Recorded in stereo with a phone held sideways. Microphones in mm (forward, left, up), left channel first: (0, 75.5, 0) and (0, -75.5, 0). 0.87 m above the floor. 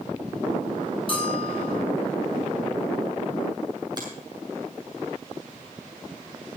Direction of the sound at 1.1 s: 40° left (ahead or behind).